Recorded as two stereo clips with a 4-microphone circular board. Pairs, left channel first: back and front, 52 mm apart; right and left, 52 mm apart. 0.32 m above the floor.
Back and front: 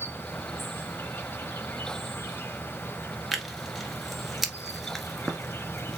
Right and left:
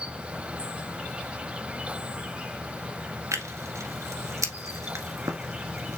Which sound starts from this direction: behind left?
An insect, at 0.0 s.